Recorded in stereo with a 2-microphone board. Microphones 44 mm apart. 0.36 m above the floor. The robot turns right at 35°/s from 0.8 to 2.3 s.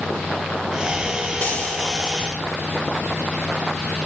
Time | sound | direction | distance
1.4 | frying | 25° left (ahead or behind) | 3.5 m